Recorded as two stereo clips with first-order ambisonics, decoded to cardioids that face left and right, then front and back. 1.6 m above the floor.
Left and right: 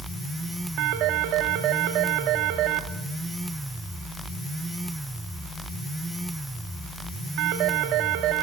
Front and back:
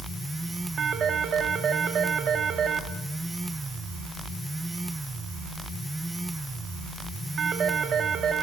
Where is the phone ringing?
120° right, 2.5 m.